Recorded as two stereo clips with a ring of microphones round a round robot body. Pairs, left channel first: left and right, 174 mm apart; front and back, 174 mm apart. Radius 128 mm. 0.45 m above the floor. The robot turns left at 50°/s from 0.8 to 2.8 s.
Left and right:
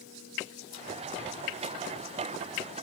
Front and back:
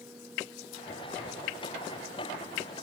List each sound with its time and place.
Only background noise.